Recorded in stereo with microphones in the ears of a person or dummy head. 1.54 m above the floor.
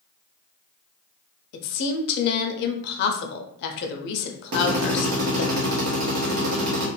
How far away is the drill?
About 0.9 m.